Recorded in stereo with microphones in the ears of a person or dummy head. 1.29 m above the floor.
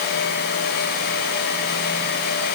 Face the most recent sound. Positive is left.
No sound to turn to.